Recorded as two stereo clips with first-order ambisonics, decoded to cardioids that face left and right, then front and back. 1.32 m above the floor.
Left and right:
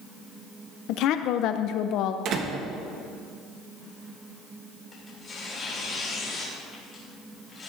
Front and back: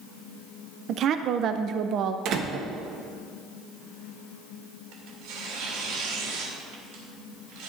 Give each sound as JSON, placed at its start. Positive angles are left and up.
{"t": 0.9, "sound": "a woman speaking", "azimuth_deg": 130, "distance_m": 0.5}
{"t": 2.2, "sound": "a door slam", "azimuth_deg": -135, "distance_m": 1.0}
{"t": 4.9, "sound": "tearing paper", "azimuth_deg": 165, "distance_m": 3.0}